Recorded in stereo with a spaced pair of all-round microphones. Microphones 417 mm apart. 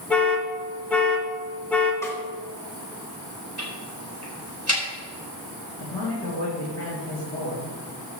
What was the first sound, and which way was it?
An alarm, 5° left (ahead or behind).